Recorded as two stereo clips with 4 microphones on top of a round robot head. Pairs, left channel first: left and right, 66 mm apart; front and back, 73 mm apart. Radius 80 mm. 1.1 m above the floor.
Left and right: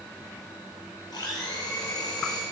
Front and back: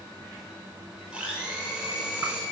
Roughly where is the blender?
Left.